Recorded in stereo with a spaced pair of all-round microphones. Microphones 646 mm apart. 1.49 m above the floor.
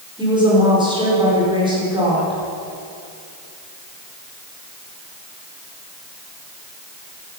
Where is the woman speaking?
5° right (ahead or behind), 5 m.